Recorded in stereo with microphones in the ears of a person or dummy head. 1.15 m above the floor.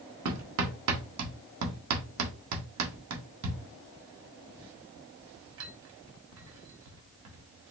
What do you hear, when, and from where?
0.2 s hammering: 80° right, 1.1 m